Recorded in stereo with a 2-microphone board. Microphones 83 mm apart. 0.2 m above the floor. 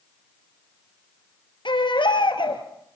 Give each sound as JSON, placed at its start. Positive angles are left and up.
{"t": 1.6, "sound": "a baby crying", "side_deg": 75, "distance_m": 3.0}